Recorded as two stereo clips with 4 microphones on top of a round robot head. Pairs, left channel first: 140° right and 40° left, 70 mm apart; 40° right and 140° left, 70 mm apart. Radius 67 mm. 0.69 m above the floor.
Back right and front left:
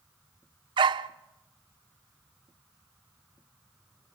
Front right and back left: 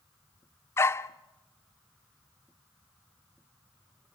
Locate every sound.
0.8 s a dog barking: 20° left, 0.6 m